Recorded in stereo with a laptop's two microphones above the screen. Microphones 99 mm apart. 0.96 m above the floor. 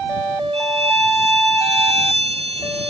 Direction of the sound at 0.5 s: 85° right.